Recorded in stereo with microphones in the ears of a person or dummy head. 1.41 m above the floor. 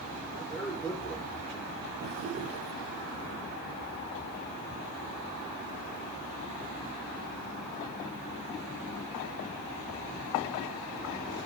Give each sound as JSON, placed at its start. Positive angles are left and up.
{"t": 0.3, "sound": "a man speaking", "side_deg": 10, "distance_m": 4.5}
{"t": 2.0, "sound": "a drawer", "side_deg": -35, "distance_m": 1.0}